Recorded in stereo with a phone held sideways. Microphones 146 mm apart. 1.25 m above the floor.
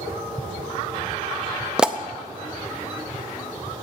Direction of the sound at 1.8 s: 5° right (ahead or behind).